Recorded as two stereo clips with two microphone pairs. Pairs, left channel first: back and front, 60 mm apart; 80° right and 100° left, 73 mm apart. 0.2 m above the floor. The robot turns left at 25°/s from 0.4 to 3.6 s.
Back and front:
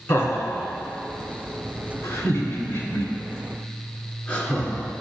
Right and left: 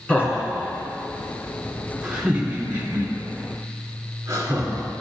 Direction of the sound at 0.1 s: 145° right.